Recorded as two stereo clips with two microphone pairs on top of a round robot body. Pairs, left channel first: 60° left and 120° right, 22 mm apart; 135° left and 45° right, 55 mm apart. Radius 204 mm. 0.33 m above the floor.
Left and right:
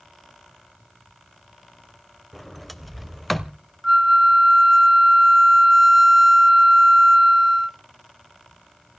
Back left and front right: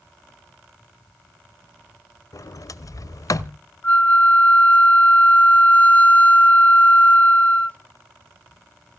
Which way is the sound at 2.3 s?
150° left.